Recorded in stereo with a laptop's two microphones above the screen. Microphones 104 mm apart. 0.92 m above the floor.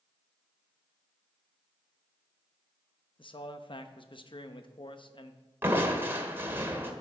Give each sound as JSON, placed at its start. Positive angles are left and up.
{"t": 3.2, "sound": "a man speaking", "side_deg": 55, "distance_m": 0.9}
{"t": 5.6, "sound": "crushing", "side_deg": -20, "distance_m": 1.9}